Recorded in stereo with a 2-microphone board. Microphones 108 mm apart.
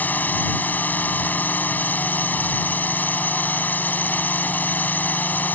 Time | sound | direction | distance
0.0 | a drone | 15° left (ahead or behind) | ?